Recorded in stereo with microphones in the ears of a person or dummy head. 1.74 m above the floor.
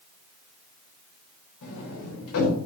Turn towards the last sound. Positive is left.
turn(degrees=65)  # may be behind; listen again after turning